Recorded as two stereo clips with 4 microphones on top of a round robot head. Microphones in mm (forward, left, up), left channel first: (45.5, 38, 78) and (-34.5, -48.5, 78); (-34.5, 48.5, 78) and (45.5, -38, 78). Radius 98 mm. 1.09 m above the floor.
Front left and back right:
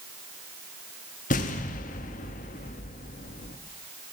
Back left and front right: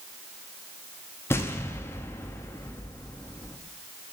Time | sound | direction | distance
1.3 | an explosion | 60° left | 0.8 m